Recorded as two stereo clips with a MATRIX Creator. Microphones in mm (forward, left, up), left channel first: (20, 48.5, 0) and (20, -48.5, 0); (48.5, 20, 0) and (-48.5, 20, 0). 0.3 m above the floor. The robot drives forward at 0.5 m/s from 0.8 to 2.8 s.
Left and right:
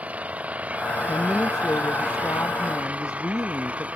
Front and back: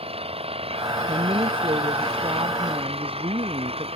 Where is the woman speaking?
150° left.